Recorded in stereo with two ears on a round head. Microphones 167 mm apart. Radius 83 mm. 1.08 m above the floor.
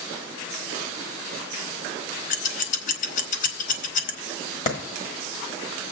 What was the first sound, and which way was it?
Scissors, 40° left (ahead or behind).